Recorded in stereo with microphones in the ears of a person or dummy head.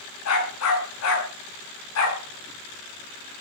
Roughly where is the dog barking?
Left.